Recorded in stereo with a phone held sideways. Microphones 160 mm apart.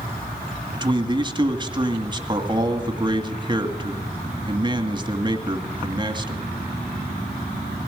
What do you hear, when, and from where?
0.7 s a man speaking: 30° right (ahead or behind), 2 m